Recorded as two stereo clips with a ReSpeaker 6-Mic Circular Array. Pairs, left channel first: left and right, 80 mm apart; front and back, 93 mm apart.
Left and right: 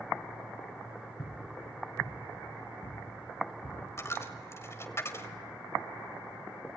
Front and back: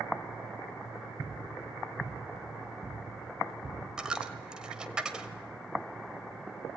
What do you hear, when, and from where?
1.2 s footsteps: 115° left, 7 m; by 3.8 s 95° left, 8.5 m
4.0 s a dropped coin: 105° left, 1.7 m